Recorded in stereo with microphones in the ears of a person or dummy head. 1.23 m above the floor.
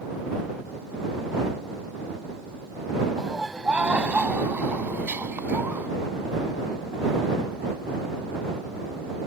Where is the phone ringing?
No phone ringing in this recording.